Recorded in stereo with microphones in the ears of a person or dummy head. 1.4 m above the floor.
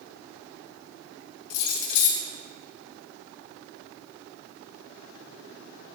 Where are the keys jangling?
65° left (ahead or behind), 1.3 m.